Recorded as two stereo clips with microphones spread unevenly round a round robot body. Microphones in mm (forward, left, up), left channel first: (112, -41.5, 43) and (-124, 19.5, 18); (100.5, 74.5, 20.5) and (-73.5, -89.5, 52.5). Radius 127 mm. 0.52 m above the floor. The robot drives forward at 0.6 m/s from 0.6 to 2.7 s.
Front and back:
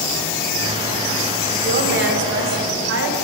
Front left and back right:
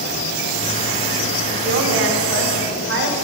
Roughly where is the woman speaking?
Behind.